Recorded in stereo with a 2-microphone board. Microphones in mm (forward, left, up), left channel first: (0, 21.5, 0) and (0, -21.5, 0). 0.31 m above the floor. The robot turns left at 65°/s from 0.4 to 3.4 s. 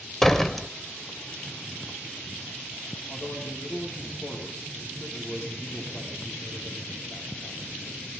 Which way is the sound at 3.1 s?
85° left.